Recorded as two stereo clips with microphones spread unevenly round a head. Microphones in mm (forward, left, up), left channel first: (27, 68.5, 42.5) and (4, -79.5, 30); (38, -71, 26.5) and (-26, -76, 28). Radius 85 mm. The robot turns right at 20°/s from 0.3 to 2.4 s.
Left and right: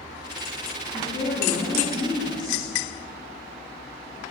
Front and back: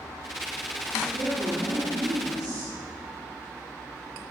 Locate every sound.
0.9 s a woman speaking: 140° left, 2.5 m; by 2.7 s 170° left, 2.5 m